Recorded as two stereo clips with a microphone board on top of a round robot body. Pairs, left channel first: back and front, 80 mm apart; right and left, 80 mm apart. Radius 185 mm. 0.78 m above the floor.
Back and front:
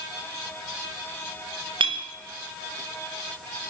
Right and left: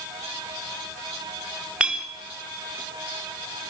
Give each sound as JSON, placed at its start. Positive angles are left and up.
{"t": 1.8, "sound": "a clink", "azimuth_deg": 15, "distance_m": 1.3}